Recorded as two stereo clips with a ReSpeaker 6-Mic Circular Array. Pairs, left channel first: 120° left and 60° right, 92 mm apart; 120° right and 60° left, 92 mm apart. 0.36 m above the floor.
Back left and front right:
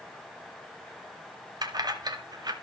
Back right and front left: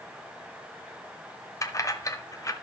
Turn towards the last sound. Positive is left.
turn(degrees=-80)